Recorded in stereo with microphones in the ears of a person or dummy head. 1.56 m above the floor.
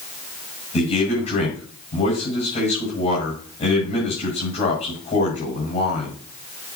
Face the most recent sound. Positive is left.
turn(degrees=35)  # may be behind; listen again after turning